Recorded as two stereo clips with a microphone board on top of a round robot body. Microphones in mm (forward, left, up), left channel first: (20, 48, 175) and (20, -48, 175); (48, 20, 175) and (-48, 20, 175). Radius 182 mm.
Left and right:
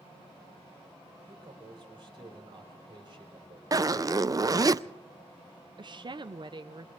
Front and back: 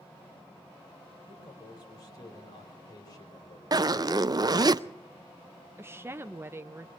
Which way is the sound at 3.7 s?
140° right.